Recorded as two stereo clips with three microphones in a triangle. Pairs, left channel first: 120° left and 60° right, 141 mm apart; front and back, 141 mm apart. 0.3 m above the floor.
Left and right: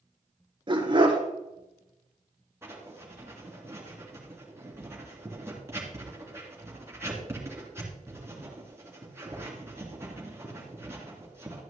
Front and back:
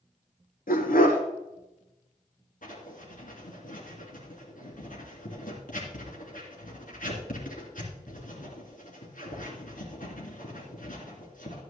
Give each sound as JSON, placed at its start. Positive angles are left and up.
{"t": 0.7, "sound": "a dog barking", "azimuth_deg": -5, "distance_m": 1.4}
{"t": 2.6, "sound": "writing", "azimuth_deg": 10, "distance_m": 2.5}